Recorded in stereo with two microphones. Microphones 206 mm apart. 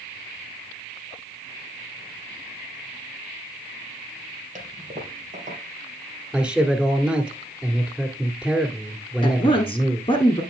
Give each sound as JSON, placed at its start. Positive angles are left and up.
{"t": 4.5, "sound": "a toilet flushing", "side_deg": -40, "distance_m": 2.5}
{"t": 6.3, "sound": "a man speaking", "side_deg": -5, "distance_m": 1.7}
{"t": 9.2, "sound": "a woman speaking", "side_deg": 25, "distance_m": 1.4}